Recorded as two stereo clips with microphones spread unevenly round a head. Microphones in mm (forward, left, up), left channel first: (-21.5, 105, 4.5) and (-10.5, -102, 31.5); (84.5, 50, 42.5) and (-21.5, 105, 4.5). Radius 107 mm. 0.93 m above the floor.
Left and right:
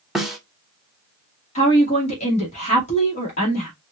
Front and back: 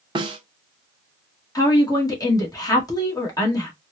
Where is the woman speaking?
35° left, 2.0 m.